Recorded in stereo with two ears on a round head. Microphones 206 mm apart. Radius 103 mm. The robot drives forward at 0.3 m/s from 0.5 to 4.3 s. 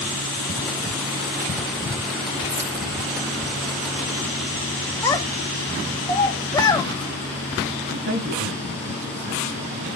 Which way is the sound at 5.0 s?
15° left (ahead or behind).